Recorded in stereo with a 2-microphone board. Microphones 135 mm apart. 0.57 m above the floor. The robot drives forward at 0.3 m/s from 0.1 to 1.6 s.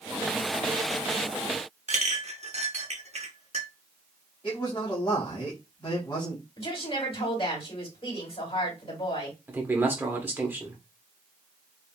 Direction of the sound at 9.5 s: 15° right (ahead or behind).